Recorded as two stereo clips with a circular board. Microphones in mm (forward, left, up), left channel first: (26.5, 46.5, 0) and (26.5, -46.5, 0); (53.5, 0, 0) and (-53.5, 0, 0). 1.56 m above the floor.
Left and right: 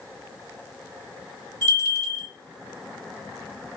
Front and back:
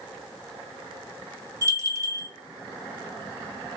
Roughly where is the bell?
Behind left.